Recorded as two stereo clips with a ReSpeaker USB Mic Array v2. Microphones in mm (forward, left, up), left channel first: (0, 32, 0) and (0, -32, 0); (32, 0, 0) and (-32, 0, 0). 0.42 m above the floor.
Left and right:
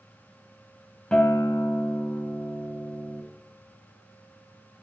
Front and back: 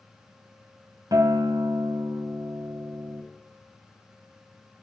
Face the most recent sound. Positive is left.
turn(degrees=165)